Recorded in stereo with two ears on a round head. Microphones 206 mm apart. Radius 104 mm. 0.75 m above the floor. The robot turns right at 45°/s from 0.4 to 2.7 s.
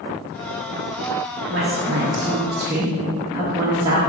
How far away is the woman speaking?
About 0.8 m.